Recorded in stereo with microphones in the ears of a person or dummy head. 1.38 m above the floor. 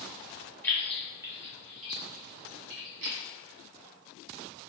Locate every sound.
0.6 s keys jangling: 10° left (ahead or behind), 0.7 m; by 3.2 s 70° right (ahead or behind), 1.1 m